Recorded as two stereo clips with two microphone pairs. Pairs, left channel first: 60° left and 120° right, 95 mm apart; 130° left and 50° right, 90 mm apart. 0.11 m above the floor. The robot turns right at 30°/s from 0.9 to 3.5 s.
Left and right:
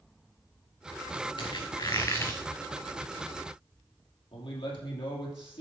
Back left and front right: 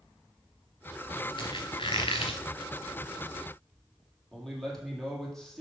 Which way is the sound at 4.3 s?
45° left.